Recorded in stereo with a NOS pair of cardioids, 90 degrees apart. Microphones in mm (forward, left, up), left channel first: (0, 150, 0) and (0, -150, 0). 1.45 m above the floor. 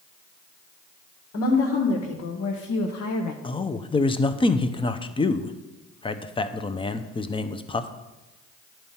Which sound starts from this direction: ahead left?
A woman speaking, at 1.3 s.